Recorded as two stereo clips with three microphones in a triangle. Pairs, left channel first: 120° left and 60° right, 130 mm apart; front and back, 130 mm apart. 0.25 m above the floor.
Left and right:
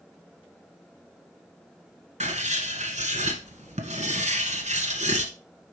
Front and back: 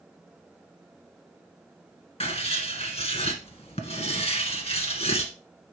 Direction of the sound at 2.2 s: 35° right.